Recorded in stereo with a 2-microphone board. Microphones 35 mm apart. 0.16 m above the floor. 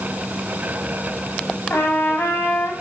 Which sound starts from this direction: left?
A trumpet, at 1.7 s.